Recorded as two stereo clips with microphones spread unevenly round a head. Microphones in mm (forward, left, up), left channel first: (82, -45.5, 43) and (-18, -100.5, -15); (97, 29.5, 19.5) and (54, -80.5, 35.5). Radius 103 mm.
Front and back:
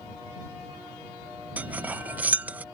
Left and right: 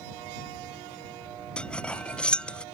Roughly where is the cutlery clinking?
Ahead.